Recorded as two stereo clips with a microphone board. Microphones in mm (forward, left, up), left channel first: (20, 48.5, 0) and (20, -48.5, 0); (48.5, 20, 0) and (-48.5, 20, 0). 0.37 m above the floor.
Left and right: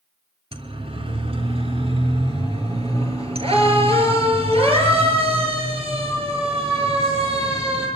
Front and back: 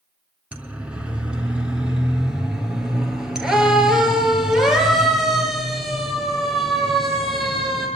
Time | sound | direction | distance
0.5 | a siren | 105° right | 4 m